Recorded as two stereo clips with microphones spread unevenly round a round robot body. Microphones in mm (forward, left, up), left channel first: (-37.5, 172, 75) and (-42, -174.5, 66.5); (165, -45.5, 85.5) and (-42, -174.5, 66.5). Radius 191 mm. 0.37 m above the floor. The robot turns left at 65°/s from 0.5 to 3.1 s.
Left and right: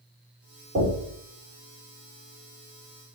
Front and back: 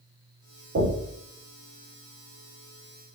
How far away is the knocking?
About 1.2 m.